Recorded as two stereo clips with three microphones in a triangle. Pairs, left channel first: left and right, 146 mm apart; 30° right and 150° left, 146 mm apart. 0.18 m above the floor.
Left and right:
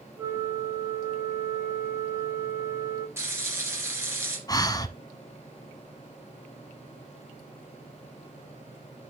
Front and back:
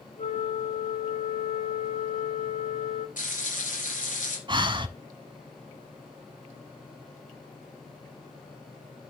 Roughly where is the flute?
Ahead.